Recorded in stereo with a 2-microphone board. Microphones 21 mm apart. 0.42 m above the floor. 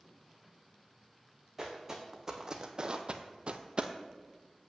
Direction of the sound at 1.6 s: 15° right (ahead or behind).